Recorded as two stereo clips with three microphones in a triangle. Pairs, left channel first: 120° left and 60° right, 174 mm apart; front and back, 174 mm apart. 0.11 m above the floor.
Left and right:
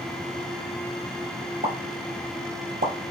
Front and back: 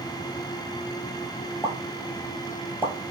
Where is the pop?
75° right, 0.8 m.